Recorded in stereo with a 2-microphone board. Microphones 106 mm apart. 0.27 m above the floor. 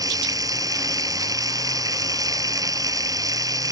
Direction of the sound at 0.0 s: 35° right (ahead or behind).